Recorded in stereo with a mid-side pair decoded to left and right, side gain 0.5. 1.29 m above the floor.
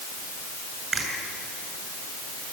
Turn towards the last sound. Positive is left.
turn(degrees=-35)